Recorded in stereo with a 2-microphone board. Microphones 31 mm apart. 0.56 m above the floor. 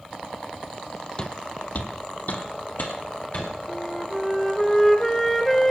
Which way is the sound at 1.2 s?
25° left (ahead or behind).